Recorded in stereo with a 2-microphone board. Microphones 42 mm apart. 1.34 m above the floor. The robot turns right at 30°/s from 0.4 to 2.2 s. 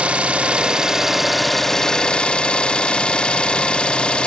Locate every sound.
0.0 s an engine running: 30° right, 0.8 m; by 4.3 s 25° left, 0.8 m